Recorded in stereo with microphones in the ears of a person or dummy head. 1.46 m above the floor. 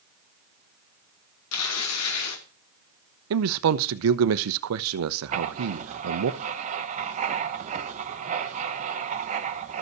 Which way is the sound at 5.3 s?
35° right (ahead or behind).